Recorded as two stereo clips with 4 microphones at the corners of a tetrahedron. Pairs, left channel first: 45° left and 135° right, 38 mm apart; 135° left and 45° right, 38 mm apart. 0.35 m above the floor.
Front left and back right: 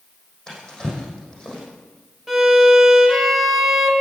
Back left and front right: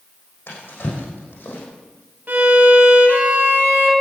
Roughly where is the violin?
Ahead right.